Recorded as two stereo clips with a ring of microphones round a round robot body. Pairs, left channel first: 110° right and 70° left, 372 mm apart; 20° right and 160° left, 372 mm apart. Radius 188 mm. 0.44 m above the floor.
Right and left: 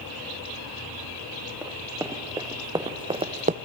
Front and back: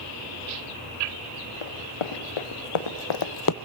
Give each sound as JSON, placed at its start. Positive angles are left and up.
{"t": 1.6, "sound": "running footsteps", "azimuth_deg": -15, "distance_m": 3.0}